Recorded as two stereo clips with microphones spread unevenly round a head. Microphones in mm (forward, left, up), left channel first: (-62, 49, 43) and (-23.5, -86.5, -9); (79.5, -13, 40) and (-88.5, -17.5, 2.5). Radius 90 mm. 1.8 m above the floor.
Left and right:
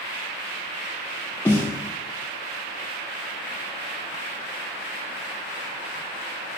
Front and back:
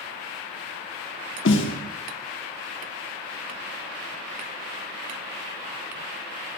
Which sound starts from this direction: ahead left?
A snare drum, at 1.4 s.